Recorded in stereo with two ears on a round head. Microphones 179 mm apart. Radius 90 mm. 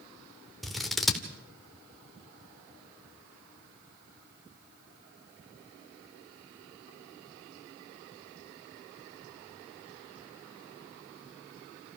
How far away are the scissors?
About 1.8 m.